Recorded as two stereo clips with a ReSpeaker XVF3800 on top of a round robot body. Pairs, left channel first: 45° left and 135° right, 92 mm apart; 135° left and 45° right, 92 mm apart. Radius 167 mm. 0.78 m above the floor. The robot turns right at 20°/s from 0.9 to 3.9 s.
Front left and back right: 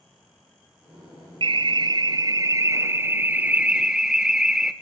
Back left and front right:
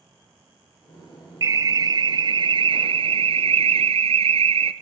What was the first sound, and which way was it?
An alarm, 100° right.